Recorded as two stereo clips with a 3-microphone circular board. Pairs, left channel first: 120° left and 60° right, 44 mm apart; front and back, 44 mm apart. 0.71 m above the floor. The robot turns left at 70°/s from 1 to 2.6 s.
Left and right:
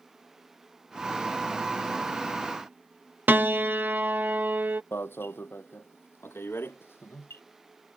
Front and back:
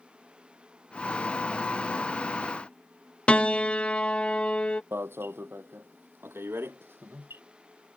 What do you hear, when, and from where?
3.3 s a piano: 55° right
4.9 s an alarm: 150° left